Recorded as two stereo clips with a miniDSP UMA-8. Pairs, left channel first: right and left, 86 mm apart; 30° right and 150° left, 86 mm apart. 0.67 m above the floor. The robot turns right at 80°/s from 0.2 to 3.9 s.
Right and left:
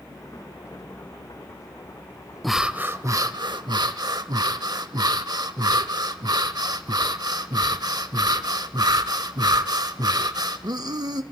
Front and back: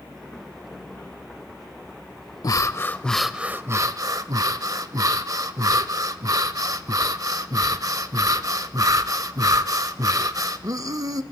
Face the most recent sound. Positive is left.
turn(degrees=115)